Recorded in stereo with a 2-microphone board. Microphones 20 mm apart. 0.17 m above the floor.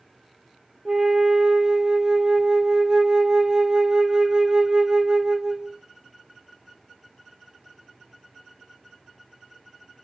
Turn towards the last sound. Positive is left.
turn(degrees=-45)  # may be behind; listen again after turning